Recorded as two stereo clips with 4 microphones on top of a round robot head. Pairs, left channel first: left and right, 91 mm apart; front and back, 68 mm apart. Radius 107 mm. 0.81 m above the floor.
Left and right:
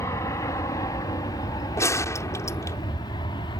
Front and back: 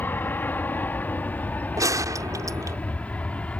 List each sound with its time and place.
0.0 s an aircraft: 45° left; by 3.6 s 65° left
1.8 s a gunshot: 145° left